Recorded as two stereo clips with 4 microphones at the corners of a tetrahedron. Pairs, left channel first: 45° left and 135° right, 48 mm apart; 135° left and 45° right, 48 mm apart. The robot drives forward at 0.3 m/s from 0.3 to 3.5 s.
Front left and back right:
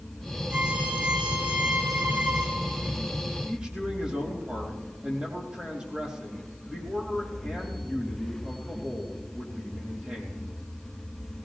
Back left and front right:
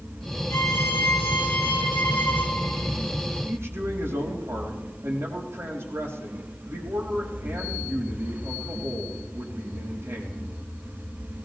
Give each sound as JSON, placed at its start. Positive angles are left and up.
{"t": 0.5, "sound": "a violin", "azimuth_deg": 160, "distance_m": 3.0}
{"t": 3.5, "sound": "a man speaking", "azimuth_deg": -70, "distance_m": 5.0}